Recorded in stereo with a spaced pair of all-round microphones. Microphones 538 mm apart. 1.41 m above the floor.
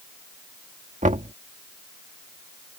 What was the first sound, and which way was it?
Knocking, 15° right (ahead or behind).